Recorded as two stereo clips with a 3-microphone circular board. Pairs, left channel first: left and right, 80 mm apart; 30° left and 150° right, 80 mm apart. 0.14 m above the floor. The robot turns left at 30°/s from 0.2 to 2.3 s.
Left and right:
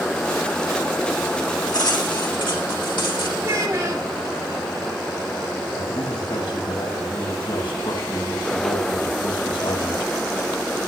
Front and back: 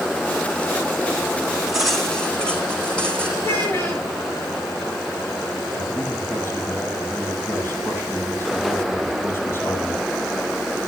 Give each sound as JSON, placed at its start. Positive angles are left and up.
{"t": 1.7, "sound": "cutlery clinking", "azimuth_deg": 125, "distance_m": 4.5}
{"t": 3.4, "sound": "a child speaking", "azimuth_deg": -30, "distance_m": 8.5}
{"t": 5.7, "sound": "a man speaking", "azimuth_deg": 90, "distance_m": 6.5}